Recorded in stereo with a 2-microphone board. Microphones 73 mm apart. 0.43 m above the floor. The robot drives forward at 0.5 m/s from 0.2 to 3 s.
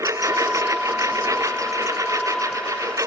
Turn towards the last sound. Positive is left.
turn(degrees=-50)  # may be behind; listen again after turning